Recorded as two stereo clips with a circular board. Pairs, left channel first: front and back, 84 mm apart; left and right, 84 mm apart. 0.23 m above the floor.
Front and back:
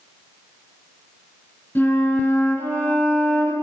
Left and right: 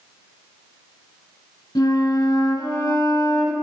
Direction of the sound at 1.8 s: 60° left.